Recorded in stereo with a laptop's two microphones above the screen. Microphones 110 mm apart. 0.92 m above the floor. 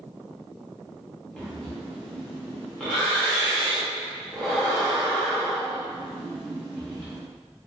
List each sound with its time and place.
1.4 s breathing: 5° left (ahead or behind), 0.7 m